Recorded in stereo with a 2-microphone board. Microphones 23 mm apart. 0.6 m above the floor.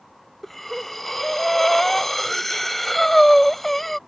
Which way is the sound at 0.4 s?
15° left (ahead or behind).